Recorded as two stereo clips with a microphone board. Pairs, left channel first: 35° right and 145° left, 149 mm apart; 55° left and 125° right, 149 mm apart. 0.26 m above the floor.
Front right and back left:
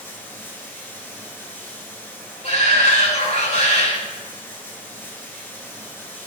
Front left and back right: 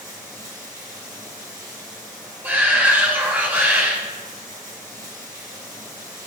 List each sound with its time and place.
0.0 s running water: 110° right, 2.5 m
2.4 s a shout: 50° right, 2.5 m